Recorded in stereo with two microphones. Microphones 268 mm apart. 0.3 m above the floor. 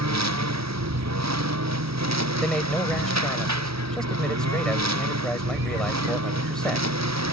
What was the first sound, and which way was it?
A lawn mower, 80° right.